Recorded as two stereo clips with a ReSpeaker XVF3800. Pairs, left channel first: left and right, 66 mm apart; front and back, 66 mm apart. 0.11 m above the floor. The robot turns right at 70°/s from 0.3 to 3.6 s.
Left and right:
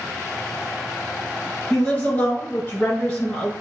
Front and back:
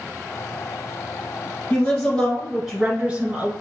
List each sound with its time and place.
1.7 s a woman speaking: 30° left, 1.4 m; by 3.5 s 160° left, 1.4 m